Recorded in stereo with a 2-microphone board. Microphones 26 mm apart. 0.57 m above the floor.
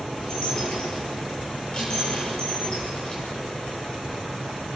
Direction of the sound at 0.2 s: 30° left (ahead or behind).